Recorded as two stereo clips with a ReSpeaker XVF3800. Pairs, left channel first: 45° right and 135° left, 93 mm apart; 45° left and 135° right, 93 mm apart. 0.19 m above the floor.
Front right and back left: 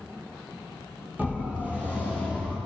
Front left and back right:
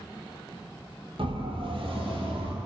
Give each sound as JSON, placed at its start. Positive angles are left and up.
{"t": 1.2, "sound": "a siren", "azimuth_deg": -155, "distance_m": 7.5}